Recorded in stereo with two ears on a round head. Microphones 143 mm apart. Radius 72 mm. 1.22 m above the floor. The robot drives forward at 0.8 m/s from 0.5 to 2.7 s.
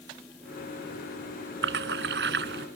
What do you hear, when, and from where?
1.6 s a splash: 80° right